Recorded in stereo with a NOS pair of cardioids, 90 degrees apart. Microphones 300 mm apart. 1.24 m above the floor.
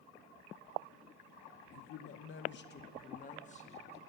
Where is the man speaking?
65° left, 0.8 m; by 4.0 s 20° left, 1.8 m.